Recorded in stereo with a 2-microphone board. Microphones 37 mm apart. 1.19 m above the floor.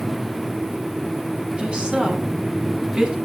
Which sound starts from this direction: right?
A woman speaking, at 1.6 s.